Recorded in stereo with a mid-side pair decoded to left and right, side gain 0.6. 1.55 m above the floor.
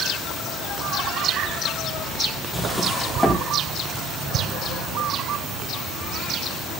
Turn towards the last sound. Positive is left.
turn(degrees=5)